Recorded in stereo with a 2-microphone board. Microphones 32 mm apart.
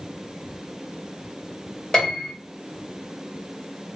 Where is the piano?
15° left (ahead or behind), 1.9 m.